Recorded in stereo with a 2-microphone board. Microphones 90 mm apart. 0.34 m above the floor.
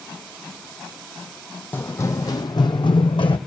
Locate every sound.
1.7 s running footsteps: 25° left (ahead or behind), 0.8 m; by 3.4 s 75° left (ahead or behind), 1.1 m